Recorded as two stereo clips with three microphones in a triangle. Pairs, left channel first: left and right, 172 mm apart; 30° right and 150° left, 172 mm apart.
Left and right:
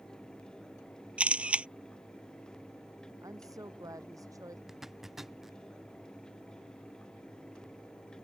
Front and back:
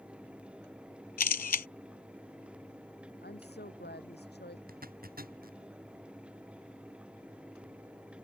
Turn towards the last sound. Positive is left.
turn(degrees=180)